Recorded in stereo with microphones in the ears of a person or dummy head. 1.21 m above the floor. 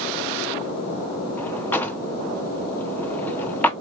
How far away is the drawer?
About 0.6 m.